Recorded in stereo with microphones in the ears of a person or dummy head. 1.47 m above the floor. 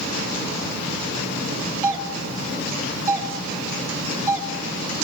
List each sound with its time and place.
1.8 s a doorbell: 10° right (ahead or behind), 1.2 m